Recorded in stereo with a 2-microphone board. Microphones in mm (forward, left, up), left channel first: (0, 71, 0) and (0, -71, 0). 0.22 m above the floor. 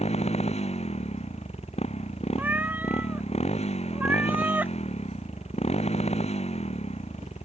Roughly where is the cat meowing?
Centre.